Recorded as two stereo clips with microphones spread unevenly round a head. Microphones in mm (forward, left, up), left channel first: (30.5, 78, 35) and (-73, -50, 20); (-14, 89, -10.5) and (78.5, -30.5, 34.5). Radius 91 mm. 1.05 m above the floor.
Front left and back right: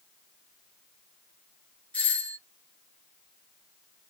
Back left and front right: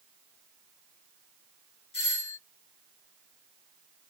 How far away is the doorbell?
About 1.8 m.